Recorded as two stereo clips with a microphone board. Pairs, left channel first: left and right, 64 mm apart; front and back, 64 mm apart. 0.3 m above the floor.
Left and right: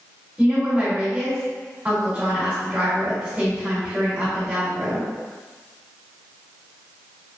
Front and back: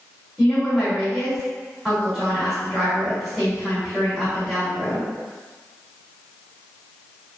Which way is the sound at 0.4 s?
110° right.